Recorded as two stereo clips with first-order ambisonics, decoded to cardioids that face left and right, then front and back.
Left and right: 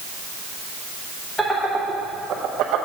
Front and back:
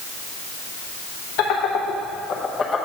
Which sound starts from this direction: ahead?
Laughter, at 1.4 s.